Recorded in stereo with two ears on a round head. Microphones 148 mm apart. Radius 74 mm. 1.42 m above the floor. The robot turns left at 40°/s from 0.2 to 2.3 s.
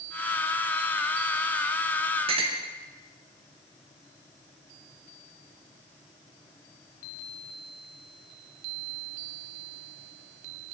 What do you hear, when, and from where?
2.3 s a clink: 35° right (ahead or behind), 0.9 m